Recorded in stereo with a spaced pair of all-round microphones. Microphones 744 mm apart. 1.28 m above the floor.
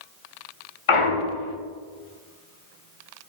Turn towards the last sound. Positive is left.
turn(degrees=45)  # may be behind; listen again after turning